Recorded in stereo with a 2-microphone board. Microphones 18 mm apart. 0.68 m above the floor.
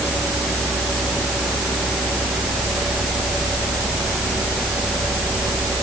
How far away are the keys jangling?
I don't hear keys jangling.